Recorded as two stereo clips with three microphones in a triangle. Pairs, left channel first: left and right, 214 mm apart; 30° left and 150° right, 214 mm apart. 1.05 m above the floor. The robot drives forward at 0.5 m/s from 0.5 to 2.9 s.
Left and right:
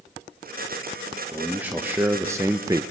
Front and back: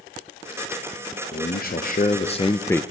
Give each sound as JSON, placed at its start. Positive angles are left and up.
{"t": 1.3, "sound": "a man speaking", "azimuth_deg": -10, "distance_m": 1.0}